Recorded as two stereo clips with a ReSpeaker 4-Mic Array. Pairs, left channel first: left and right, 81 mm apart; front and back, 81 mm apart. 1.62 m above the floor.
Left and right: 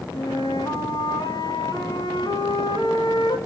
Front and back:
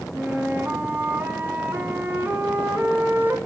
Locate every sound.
0.1 s a flute: 115° left, 3 m